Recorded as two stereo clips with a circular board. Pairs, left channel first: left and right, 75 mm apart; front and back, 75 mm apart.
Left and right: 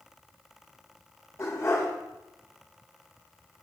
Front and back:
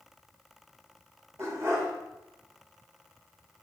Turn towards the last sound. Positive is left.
turn(degrees=140)